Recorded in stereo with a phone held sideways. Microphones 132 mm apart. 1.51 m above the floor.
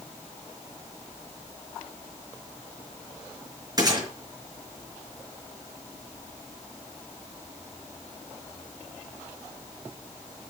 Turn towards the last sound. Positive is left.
turn(degrees=-30)  # may be behind; listen again after turning